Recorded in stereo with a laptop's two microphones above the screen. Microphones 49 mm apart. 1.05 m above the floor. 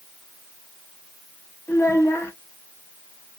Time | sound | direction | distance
1.7 | a child speaking | 65° left (ahead or behind) | 1.0 m